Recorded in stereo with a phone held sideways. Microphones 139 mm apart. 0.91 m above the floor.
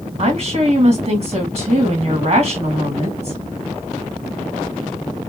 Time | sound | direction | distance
0.2 | a woman speaking | 50° right (ahead or behind) | 1.4 m